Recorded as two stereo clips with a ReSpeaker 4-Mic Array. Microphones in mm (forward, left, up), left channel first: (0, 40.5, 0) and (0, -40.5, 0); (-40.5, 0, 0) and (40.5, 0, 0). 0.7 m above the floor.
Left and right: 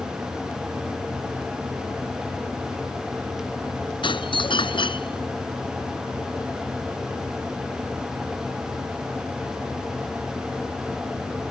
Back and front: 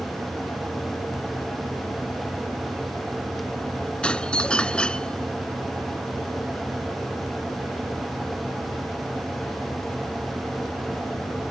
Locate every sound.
4.0 s a doorbell: 100° left